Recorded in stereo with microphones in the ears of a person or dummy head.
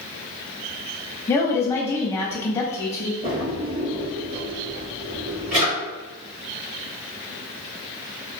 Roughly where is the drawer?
Right.